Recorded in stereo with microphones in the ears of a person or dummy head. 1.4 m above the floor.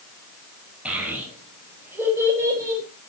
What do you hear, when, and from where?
0.8 s a child speaking: 10° right (ahead or behind), 5.5 m; by 2.8 s 20° right (ahead or behind), 4.5 m